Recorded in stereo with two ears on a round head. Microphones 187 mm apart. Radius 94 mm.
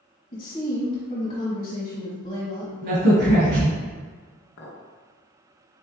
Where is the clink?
65° left (ahead or behind), 0.8 m.